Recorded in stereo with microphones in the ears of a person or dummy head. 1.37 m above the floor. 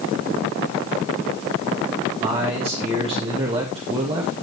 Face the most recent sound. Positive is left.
turn(degrees=-30)  # may be behind; listen again after turning